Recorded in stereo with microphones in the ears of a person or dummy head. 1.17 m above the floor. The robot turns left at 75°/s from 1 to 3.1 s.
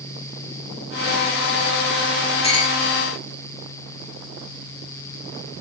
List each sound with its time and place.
2.4 s a clink: 25° left (ahead or behind), 7 m; by 2.8 s 50° left (ahead or behind), 7 m